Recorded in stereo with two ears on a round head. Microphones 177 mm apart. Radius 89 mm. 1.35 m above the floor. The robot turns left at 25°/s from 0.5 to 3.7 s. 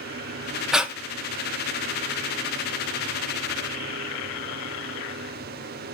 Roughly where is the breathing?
Centre.